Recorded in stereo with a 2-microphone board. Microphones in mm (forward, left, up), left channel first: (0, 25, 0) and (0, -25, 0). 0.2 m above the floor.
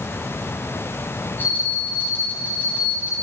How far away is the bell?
About 8.5 m.